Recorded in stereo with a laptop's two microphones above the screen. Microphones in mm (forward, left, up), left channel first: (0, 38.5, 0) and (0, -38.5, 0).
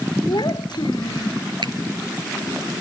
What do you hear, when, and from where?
0.3 s a child speaking: 75° left (ahead or behind)
1.6 s a finger snap: 75° right (ahead or behind)